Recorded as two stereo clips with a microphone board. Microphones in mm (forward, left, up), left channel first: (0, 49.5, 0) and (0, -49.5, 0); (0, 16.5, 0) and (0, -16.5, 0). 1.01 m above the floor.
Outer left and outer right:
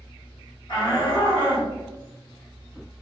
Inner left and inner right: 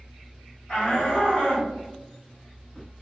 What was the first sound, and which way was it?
A shout, 60° left (ahead or behind).